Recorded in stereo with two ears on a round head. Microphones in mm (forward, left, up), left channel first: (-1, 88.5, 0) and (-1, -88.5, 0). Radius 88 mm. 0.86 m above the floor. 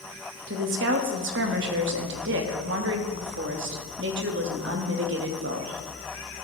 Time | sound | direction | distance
0.5 | a woman speaking | 65° right (ahead or behind) | 1.0 m